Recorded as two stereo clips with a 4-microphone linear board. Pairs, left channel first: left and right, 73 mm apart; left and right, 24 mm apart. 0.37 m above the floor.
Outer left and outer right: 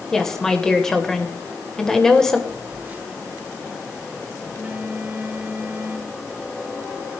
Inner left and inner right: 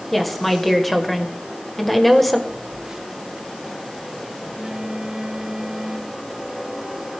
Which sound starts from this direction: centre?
A woman speaking, at 0.1 s.